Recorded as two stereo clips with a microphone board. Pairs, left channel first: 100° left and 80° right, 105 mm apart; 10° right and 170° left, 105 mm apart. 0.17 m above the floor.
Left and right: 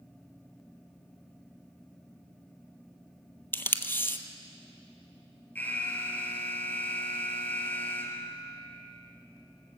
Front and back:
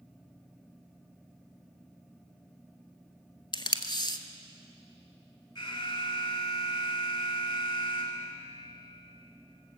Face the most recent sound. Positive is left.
turn(degrees=25)